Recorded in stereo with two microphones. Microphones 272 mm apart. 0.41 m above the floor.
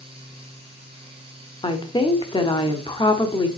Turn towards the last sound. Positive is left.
turn(degrees=20)  # may be behind; listen again after turning